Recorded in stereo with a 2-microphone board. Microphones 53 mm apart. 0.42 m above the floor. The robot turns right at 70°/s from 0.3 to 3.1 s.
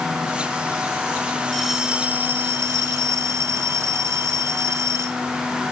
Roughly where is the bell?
Behind.